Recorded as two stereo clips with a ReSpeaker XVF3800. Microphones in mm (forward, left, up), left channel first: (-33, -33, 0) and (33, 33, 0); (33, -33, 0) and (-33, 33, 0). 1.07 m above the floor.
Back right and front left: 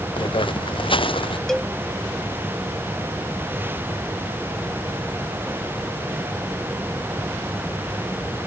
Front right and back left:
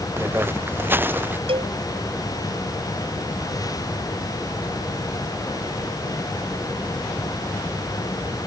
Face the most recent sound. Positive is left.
turn(degrees=140)